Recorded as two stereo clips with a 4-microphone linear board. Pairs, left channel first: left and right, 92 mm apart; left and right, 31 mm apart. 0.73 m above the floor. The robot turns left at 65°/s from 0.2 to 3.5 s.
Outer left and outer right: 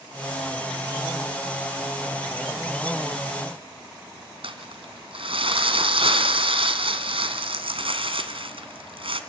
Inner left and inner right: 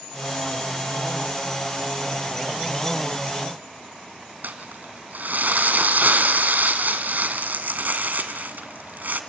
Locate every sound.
4.4 s crumpling: 75° right (ahead or behind), 2 m